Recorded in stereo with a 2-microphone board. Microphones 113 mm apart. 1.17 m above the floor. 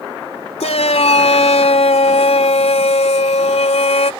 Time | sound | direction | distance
0.6 | a shout | 85° left | ?